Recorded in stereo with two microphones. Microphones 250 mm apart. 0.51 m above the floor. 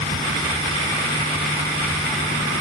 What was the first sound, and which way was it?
Only background noise.